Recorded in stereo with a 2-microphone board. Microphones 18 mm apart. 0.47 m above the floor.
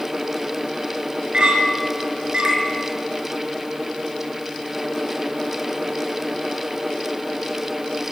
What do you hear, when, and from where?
1.3 s a clink: 80° right, 4.5 m